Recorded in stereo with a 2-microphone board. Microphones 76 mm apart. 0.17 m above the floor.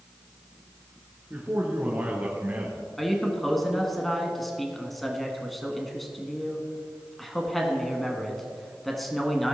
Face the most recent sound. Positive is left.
turn(degrees=5)  # may be behind; listen again after turning